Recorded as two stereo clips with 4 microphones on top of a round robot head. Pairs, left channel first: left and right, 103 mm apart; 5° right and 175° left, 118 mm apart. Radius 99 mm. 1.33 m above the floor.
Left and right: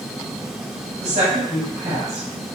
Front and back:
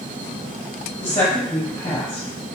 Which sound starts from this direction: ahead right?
A woman speaking, at 1.0 s.